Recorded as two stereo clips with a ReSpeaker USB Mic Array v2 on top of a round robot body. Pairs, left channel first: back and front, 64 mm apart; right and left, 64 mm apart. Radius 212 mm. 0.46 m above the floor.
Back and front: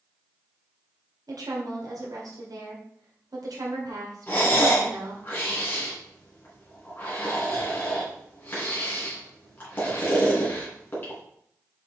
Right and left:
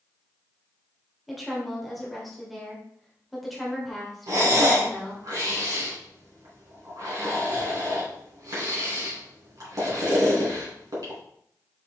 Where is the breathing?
120° left, 3.5 m.